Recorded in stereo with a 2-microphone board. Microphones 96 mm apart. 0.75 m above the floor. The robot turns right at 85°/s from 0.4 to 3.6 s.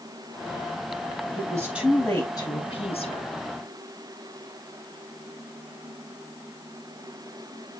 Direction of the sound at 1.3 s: 50° right.